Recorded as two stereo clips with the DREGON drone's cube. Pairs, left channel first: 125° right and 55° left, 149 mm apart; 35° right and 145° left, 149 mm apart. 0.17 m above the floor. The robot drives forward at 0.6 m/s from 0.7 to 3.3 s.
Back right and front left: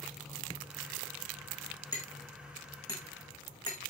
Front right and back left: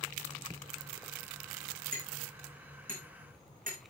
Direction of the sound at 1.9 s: 170° left.